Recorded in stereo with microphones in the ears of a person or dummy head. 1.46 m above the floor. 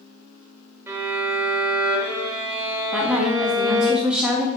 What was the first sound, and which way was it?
A violin, 20° right (ahead or behind).